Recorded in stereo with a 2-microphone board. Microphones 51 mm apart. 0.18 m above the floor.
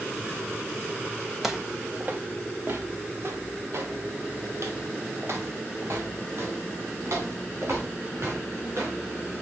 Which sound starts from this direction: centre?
Footsteps, at 1.4 s.